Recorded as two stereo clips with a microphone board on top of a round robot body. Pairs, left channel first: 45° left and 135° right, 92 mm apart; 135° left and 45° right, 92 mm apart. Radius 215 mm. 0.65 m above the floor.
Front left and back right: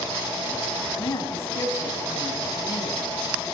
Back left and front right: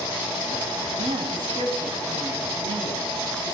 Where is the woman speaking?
15° right, 6 m.